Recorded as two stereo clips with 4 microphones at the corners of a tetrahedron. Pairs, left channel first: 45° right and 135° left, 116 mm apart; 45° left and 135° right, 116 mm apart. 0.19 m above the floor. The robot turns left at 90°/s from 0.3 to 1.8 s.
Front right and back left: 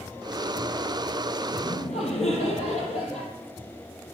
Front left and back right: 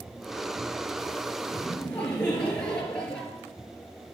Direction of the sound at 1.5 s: 15° right.